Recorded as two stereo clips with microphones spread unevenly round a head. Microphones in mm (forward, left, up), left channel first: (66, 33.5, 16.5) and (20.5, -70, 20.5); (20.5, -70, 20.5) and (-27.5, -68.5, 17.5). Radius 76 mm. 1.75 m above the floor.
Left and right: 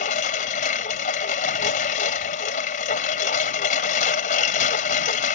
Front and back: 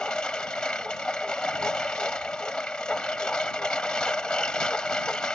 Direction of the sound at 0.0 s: 80° left.